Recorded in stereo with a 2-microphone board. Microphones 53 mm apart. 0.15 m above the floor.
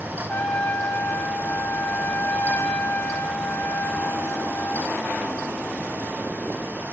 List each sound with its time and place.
0.3 s a trumpet: 35° left (ahead or behind), 3 m